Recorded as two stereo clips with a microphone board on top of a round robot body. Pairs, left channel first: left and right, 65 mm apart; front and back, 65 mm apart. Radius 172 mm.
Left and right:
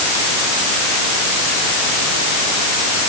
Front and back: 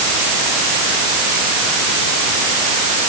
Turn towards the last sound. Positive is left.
No sound to turn to.